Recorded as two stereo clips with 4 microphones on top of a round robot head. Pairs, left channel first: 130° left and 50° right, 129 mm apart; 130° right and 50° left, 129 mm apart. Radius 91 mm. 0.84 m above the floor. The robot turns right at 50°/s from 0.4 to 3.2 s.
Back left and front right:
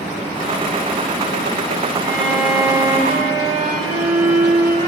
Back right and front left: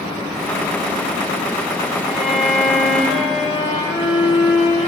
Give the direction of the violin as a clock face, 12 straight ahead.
5 o'clock.